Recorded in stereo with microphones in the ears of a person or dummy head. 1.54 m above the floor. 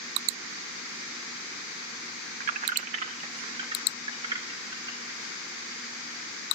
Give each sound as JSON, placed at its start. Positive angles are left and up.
{"t": 2.4, "sound": "keys jangling", "side_deg": -50, "distance_m": 0.8}